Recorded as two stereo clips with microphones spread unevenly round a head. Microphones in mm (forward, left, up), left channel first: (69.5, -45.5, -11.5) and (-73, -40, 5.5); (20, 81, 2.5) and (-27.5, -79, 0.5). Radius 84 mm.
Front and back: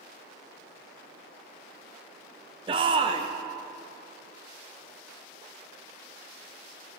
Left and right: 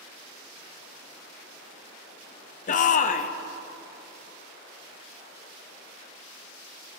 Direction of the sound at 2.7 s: 115° left.